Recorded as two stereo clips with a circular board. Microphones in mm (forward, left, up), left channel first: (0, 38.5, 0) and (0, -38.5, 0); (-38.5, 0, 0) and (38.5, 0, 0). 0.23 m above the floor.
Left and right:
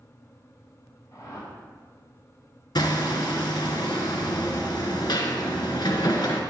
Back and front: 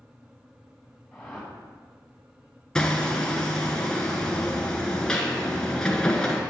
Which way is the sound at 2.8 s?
100° left.